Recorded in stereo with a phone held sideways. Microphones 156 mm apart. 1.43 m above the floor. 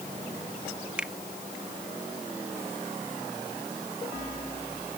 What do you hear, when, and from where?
1.0 s a finger snap: 5° right (ahead or behind)